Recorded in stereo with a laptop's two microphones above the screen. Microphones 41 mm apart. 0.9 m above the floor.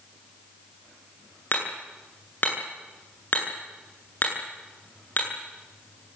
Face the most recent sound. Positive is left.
turn(degrees=50)  # may be behind; listen again after turning